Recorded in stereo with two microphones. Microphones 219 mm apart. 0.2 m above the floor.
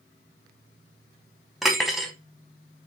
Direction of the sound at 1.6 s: Centre (ahead or behind).